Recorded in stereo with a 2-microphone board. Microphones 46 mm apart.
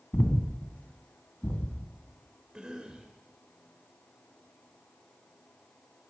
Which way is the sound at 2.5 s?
20° right (ahead or behind).